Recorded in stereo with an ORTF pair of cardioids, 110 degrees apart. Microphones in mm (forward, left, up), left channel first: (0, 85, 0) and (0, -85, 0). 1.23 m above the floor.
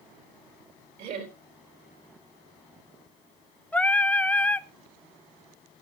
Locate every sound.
1.0 s laughter: 65° right, 4 m
3.7 s singing: 10° left, 0.6 m